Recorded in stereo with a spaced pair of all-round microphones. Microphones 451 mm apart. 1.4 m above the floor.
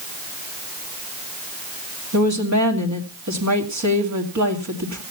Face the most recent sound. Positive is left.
turn(degrees=-35)  # may be behind; listen again after turning